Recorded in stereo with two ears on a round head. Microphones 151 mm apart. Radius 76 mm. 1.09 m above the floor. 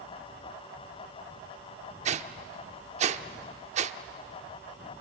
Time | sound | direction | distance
2.0 | a whoosh | 40° right (ahead or behind) | 0.8 m